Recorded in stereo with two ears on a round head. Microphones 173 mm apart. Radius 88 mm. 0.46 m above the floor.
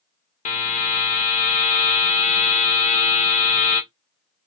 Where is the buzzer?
35° left (ahead or behind), 0.8 m.